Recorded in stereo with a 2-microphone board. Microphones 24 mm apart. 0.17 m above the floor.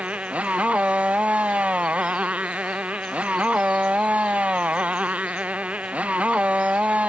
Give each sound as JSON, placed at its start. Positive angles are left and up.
{"t": 0.0, "sound": "a motorcycle", "side_deg": -70}